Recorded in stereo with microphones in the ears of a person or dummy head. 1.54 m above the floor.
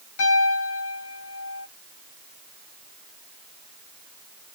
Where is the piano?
80° left, 4 m.